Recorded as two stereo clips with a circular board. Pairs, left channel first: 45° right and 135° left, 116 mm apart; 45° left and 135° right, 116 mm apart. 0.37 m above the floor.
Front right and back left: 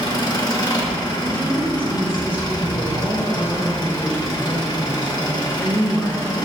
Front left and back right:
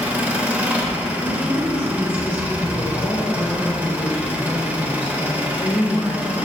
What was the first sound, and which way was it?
An engine running, 65° right.